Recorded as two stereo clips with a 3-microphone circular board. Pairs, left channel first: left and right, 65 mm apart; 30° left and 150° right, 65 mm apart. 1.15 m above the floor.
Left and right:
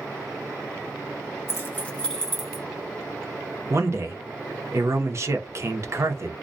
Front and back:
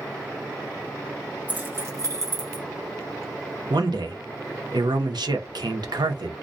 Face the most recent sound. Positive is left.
turn(degrees=-140)